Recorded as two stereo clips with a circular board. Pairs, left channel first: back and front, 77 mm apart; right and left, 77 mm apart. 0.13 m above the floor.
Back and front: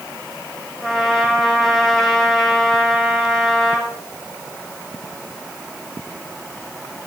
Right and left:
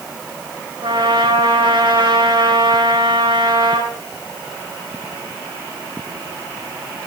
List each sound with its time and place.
0.8 s a trumpet: 90° left, 4 m